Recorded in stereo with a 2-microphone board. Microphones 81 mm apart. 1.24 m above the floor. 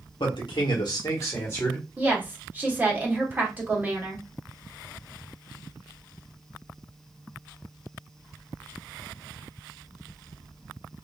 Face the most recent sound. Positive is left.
turn(degrees=-20)  # may be behind; listen again after turning